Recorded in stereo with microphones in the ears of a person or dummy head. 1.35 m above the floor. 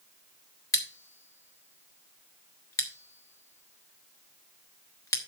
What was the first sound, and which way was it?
Scissors, 20° left (ahead or behind).